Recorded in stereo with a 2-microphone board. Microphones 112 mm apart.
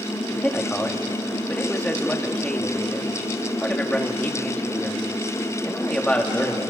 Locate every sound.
0.3 s a man speaking: 10° left (ahead or behind), 1.8 m